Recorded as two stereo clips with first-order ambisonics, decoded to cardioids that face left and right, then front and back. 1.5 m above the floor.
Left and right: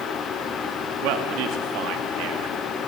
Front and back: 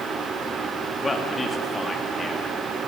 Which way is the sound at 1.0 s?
75° right.